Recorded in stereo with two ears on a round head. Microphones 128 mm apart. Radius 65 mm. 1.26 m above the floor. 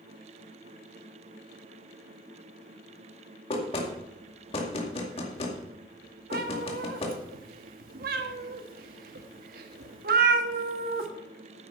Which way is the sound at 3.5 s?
40° left (ahead or behind).